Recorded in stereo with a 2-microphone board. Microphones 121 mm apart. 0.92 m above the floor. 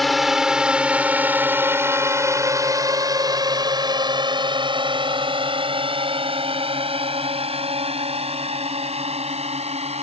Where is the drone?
Centre (ahead or behind); by 10.0 s 60° right (ahead or behind).